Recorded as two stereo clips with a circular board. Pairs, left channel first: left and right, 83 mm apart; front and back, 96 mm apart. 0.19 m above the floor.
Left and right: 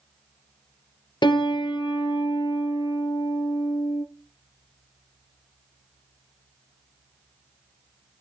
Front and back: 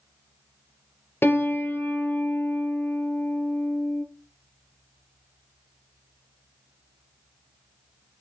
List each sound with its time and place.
1.2 s a piano: 65° left, 1.2 m